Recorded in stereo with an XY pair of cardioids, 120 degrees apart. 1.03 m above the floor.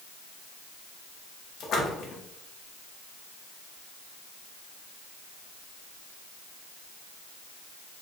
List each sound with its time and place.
1.6 s a splash: 55° left, 0.9 m